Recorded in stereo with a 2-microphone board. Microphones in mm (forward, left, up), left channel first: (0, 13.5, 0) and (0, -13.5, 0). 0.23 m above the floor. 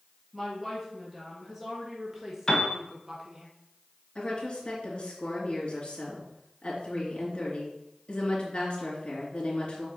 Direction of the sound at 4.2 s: 40° left (ahead or behind).